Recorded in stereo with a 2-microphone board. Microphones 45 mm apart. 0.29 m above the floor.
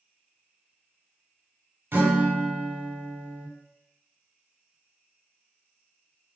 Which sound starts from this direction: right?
A guitar, at 1.9 s.